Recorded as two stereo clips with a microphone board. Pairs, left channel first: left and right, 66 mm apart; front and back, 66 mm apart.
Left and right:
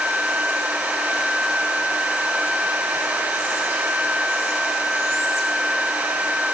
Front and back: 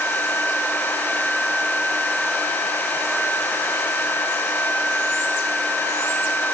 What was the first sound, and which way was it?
Only background noise.